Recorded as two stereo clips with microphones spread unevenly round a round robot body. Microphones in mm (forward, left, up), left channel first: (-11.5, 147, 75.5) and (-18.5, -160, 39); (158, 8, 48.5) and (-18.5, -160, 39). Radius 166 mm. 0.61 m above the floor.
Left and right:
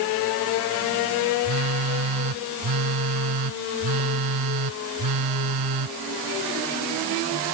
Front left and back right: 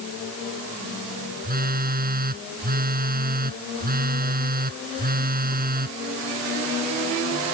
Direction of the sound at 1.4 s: 85° right.